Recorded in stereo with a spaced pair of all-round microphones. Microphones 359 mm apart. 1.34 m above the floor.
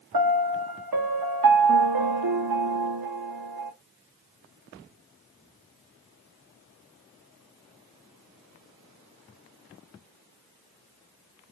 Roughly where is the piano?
Right.